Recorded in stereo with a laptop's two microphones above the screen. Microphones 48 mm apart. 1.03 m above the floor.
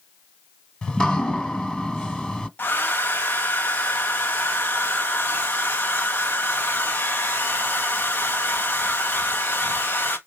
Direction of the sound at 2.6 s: 40° left (ahead or behind).